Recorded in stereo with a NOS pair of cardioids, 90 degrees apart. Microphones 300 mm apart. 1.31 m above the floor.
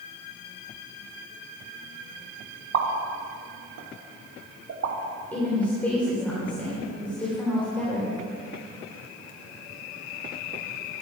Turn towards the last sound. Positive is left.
turn(degrees=5)